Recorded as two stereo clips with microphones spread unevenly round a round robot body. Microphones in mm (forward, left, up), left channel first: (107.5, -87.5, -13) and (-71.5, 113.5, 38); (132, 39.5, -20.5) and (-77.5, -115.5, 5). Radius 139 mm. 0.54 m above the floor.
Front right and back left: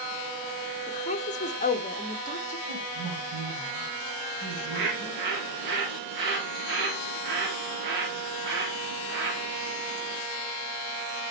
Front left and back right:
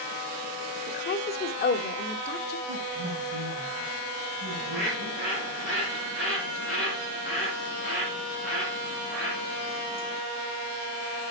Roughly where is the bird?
Behind left.